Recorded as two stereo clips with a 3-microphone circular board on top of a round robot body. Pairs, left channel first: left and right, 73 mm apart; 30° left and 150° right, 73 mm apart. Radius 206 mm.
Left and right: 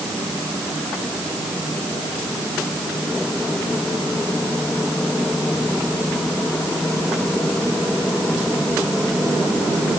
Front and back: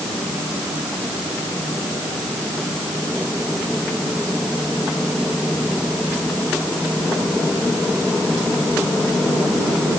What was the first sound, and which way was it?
Only background noise.